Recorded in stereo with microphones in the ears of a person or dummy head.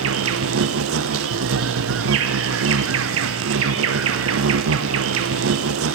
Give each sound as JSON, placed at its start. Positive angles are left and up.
{"t": 0.0, "sound": "an insect", "side_deg": -60, "distance_m": 1.2}